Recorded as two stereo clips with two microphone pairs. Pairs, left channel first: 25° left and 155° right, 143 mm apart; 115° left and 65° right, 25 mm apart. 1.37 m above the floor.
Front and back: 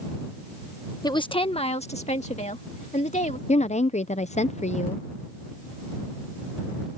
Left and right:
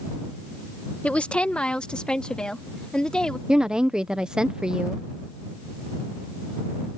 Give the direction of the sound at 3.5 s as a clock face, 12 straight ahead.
12 o'clock.